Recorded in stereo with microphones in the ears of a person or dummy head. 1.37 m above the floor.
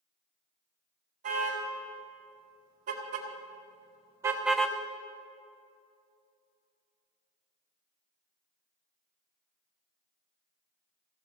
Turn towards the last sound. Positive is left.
turn(degrees=10)  # may be behind; listen again after turning